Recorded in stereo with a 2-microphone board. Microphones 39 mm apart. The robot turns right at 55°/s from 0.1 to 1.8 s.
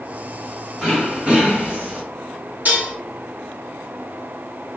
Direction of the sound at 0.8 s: 175° right.